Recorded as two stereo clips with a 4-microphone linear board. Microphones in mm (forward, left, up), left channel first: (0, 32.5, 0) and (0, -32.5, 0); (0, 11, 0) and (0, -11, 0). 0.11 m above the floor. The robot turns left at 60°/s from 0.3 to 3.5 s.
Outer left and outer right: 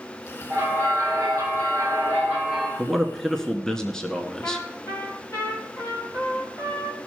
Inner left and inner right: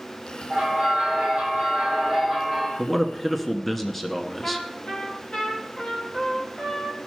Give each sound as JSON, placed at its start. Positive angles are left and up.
{"t": 0.5, "sound": "a bell", "azimuth_deg": -50, "distance_m": 4.0}
{"t": 2.8, "sound": "a man speaking", "side_deg": -5, "distance_m": 1.1}
{"t": 4.4, "sound": "a trumpet", "side_deg": 55, "distance_m": 3.5}